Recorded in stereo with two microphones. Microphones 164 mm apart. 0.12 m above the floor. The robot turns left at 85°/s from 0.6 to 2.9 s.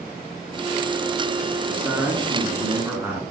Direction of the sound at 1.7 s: 10° right (ahead or behind).